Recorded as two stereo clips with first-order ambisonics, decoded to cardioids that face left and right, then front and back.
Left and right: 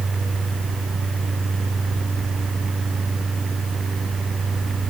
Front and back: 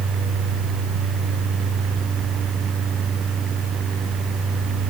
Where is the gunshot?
I don't hear a gunshot.